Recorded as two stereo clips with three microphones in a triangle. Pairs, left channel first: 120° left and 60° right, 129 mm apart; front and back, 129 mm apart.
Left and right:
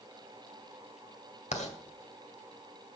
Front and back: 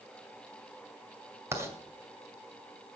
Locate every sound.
1.5 s writing: 115° left, 2 m